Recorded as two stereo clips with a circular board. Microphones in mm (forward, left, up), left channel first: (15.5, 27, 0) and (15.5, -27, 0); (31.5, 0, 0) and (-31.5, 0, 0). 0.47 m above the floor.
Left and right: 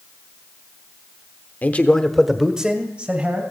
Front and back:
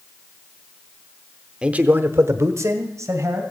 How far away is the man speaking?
About 1.0 m.